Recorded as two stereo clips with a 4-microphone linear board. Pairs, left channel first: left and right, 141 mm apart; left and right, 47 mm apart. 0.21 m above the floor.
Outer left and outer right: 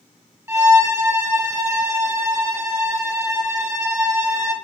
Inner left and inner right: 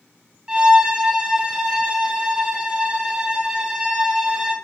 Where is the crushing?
I don't hear crushing.